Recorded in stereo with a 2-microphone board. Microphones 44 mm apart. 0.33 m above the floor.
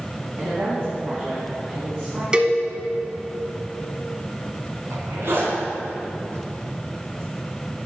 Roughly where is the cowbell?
Right.